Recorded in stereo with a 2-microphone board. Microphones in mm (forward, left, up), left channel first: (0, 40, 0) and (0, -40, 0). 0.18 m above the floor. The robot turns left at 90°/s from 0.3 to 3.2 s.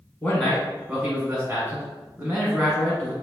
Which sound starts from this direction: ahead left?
A man speaking, at 0.2 s.